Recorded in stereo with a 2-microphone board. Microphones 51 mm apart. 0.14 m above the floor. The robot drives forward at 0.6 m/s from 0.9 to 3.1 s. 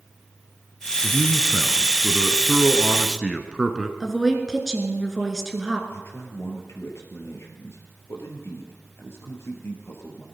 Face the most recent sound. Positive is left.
turn(degrees=60)  # may be behind; listen again after turning